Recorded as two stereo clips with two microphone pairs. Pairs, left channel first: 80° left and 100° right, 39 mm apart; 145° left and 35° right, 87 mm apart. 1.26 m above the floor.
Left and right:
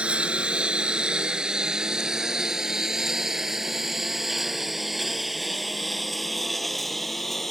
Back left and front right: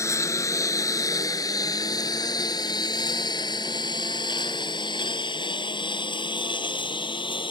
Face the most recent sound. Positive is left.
turn(degrees=165)